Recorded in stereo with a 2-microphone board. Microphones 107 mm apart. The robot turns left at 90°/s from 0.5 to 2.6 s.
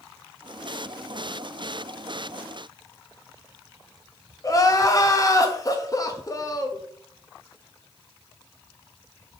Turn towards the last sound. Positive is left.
turn(degrees=35)  # may be behind; listen again after turning